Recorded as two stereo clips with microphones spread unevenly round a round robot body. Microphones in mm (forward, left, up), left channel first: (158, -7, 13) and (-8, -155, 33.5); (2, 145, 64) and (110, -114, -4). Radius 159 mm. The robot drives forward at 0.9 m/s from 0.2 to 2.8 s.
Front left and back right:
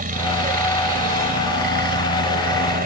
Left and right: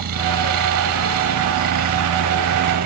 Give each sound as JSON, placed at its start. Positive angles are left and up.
{"t": 0.0, "sound": "a helicopter", "azimuth_deg": -95}